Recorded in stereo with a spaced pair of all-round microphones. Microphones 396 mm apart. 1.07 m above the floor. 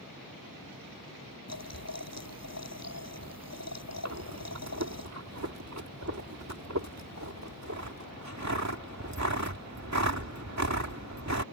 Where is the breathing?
45° right (ahead or behind).